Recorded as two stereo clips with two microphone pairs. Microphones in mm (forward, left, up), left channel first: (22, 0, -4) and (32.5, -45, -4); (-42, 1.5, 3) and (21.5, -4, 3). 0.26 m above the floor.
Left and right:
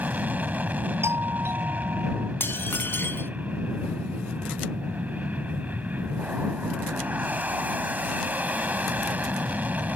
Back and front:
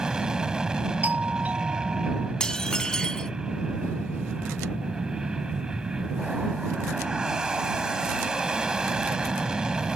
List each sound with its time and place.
0.0 s an aircraft: 75° right
1.0 s a doorbell: 70° right
2.4 s dishes clattering: 100° left